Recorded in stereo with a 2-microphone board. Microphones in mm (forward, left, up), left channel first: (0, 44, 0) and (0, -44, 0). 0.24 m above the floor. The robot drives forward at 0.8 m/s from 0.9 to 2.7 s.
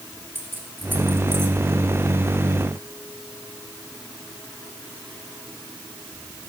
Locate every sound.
0.3 s keys jangling: 25° right (ahead or behind), 2.5 m; by 1.6 s 30° right (ahead or behind), 2 m